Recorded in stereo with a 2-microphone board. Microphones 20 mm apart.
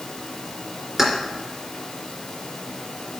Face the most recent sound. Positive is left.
turn(degrees=-30)  # may be behind; listen again after turning